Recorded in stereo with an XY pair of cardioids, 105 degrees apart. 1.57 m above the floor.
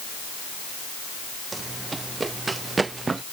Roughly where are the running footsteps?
Ahead right.